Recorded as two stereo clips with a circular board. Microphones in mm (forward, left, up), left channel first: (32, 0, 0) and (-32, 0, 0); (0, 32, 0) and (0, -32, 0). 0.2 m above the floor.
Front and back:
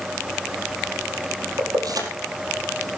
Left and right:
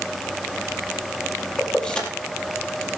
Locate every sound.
1.6 s keys jangling: 165° left, 4 m